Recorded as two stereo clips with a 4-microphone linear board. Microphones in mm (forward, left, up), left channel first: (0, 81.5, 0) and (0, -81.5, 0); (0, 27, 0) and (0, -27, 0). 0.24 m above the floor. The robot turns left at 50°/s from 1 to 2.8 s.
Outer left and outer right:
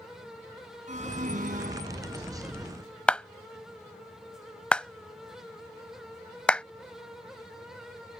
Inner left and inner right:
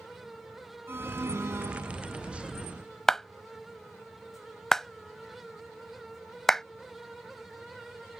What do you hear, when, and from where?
0.9 s an alarm: 65° right; by 2.3 s 125° right
3.1 s a clap: 5° left (ahead or behind)